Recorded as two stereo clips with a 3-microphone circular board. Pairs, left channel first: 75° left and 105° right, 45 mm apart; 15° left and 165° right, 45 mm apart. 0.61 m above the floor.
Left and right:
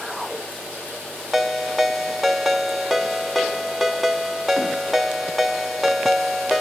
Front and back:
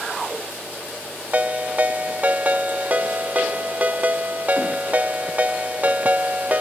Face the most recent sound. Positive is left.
turn(degrees=165)